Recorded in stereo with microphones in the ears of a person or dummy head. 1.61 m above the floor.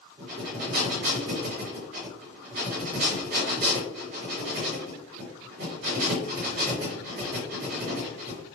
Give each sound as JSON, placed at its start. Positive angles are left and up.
{"t": 0.2, "sound": "breathing", "side_deg": -45, "distance_m": 1.8}